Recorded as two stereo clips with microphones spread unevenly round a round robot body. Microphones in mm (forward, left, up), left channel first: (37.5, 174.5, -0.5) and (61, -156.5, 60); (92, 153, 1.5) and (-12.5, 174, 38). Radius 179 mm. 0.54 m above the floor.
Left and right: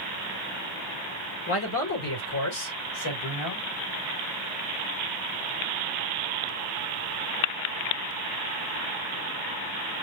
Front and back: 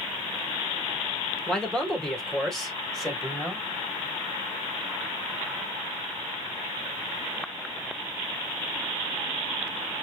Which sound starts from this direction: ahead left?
A man speaking, at 1.5 s.